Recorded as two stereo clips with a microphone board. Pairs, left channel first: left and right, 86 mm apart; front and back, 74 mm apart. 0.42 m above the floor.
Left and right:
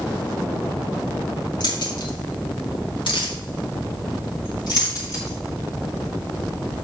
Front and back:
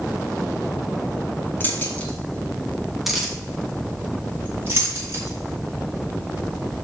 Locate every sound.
1.6 s keys jangling: 60° left, 3 m; by 6.8 s 145° left, 5.5 m